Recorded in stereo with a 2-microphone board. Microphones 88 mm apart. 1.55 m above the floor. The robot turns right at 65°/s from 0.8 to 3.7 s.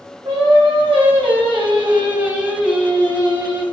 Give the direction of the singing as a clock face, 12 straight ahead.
4 o'clock.